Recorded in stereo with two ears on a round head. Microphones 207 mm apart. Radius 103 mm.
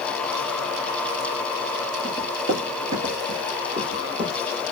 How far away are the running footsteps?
About 2 m.